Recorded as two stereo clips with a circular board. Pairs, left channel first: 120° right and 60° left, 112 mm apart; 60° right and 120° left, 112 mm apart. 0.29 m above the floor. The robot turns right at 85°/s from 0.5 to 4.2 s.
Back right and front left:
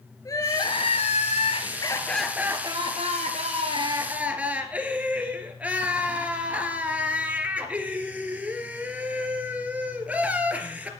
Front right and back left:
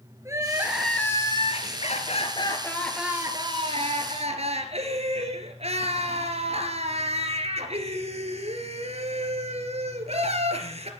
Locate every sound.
0.2 s crying: 175° right, 2.5 m; by 10.9 s 135° left, 2.5 m